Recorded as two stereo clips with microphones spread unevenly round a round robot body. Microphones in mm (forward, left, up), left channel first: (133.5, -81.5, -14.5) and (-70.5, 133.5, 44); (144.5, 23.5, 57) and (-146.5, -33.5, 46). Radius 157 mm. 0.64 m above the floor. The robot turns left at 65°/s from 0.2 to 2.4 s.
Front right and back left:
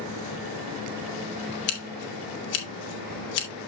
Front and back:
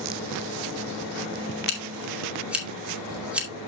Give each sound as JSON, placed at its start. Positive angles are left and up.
{"t": 1.7, "sound": "scissors", "azimuth_deg": -35, "distance_m": 2.5}